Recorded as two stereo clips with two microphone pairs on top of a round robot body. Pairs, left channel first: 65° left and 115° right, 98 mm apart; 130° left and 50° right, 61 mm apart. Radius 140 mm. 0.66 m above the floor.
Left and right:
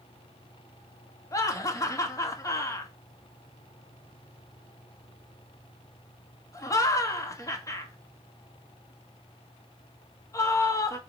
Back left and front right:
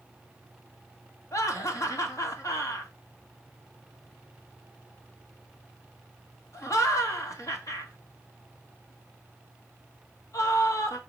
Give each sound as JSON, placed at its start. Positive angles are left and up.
{"t": 1.3, "sound": "laughter", "azimuth_deg": 115, "distance_m": 2.0}